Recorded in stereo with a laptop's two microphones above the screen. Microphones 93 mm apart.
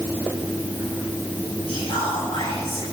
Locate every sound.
1.7 s whispering: 60° left (ahead or behind), 6.5 m